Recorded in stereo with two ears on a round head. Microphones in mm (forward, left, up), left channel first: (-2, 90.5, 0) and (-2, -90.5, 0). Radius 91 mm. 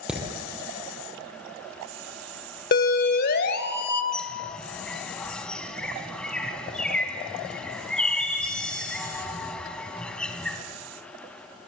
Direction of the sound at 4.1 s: 5° left (ahead or behind).